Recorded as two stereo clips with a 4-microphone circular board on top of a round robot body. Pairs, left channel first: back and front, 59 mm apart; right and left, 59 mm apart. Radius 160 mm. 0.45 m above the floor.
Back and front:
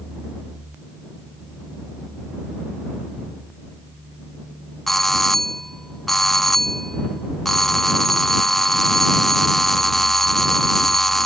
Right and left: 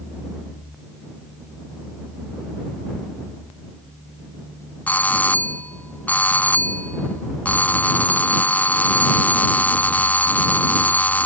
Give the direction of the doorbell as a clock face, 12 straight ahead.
3 o'clock.